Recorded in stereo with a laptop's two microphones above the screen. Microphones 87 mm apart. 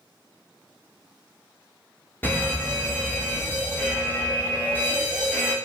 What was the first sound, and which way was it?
A fire alarm, 25° left (ahead or behind).